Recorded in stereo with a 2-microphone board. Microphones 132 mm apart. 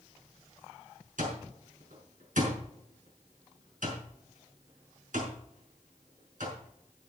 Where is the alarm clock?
80° right, 5.5 m.